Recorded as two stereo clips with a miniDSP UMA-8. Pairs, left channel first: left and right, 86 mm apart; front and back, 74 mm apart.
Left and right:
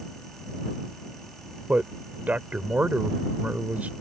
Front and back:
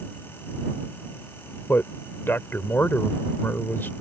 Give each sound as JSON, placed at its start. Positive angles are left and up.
{"t": 1.7, "sound": "a man speaking", "azimuth_deg": -35}